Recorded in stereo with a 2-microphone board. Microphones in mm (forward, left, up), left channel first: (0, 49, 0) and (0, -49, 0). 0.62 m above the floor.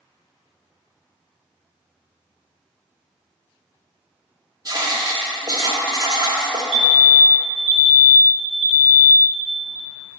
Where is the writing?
40° right (ahead or behind), 0.8 m.